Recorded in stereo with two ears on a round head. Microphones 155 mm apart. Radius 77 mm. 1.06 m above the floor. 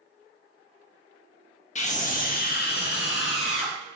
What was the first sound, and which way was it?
A scream, 45° left (ahead or behind).